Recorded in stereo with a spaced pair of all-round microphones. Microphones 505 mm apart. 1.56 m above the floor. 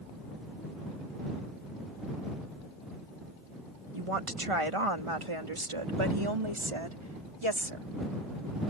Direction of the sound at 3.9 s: 85° right.